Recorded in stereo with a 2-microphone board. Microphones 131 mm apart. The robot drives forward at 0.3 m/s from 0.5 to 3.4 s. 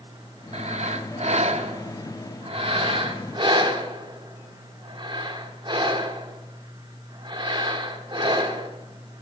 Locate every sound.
0.5 s breathing: 55° right (ahead or behind), 0.7 m; by 8.7 s 40° right (ahead or behind), 1.0 m